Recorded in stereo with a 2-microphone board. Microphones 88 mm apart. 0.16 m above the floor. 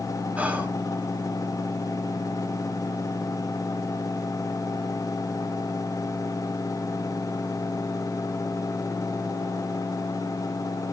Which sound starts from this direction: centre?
Whispering, at 0.4 s.